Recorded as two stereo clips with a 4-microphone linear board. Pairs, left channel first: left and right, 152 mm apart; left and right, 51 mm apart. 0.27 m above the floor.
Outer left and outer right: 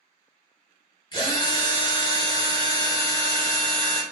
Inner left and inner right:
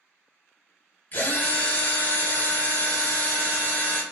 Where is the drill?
35° left (ahead or behind), 0.9 m.